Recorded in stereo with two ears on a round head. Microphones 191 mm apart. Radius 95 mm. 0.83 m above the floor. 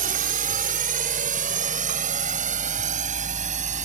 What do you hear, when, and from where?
0.0 s a drone: 40° right (ahead or behind); by 3.9 s 35° right (ahead or behind)